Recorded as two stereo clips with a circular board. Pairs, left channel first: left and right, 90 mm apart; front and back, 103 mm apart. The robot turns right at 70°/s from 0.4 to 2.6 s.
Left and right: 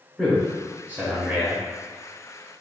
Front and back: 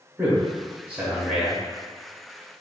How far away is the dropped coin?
I don't hear a dropped coin.